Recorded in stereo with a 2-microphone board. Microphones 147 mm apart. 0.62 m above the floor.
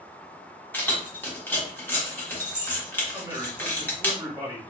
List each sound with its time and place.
0.7 s keys jangling: 15° left (ahead or behind), 0.7 m
3.1 s a man speaking: 20° right (ahead or behind), 1.3 m